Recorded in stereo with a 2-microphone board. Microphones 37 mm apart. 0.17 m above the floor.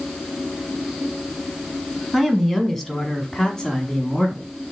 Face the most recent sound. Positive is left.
turn(degrees=20)  # may be behind; listen again after turning